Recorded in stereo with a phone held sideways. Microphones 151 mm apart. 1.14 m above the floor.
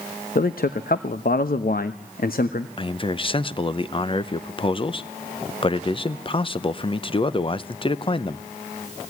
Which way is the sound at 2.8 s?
35° left (ahead or behind).